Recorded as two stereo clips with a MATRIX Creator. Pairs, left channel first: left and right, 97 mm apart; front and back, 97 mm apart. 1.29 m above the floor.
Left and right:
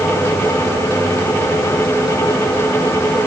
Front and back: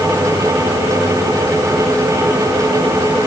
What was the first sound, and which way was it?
Only background noise.